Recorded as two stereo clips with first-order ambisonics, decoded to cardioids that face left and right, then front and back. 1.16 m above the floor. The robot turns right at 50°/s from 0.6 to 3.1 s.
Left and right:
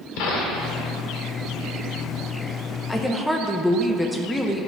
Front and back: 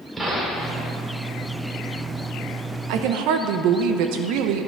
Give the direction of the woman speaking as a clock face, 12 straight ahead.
6 o'clock.